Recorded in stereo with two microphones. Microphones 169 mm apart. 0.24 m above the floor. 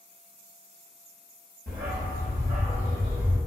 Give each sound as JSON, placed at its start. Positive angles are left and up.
{"t": 1.7, "sound": "a dog barking", "side_deg": -75, "distance_m": 1.3}